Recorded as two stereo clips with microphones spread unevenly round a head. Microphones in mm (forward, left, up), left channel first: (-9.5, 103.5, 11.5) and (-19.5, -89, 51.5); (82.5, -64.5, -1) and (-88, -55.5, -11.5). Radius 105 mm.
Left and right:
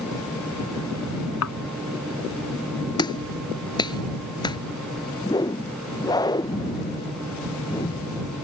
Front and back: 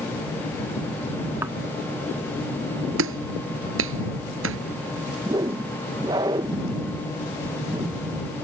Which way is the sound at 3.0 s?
155° left.